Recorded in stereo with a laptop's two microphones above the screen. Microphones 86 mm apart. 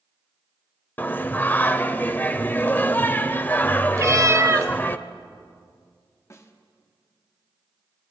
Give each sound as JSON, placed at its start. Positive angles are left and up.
{"t": 1.0, "sound": "singing", "side_deg": 20, "distance_m": 0.7}
{"t": 4.0, "sound": "a cat meowing", "side_deg": -35, "distance_m": 0.7}
{"t": 6.3, "sound": "a snare drum", "side_deg": 35, "distance_m": 1.2}